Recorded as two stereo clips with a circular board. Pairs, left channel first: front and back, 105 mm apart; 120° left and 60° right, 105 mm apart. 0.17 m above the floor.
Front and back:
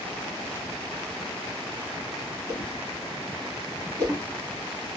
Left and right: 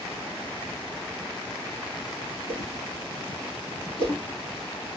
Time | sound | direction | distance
2.5 | a whoosh | 130° left | 1.4 m